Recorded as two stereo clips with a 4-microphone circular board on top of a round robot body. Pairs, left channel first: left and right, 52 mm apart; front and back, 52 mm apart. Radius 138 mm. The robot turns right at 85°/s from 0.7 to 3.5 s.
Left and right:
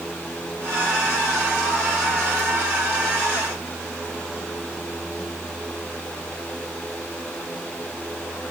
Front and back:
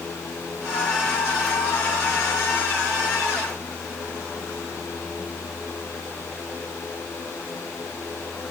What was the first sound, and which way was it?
Only background noise.